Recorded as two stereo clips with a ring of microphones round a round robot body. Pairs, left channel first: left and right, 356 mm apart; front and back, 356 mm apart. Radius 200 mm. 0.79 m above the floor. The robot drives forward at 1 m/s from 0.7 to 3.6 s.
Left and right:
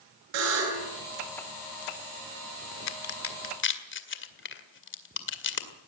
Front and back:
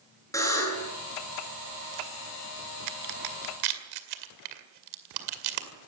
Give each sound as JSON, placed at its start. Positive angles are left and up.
{"t": 0.3, "sound": "a buzzer", "azimuth_deg": -80, "distance_m": 10.0}
{"t": 2.9, "sound": "a crack", "azimuth_deg": 135, "distance_m": 1.6}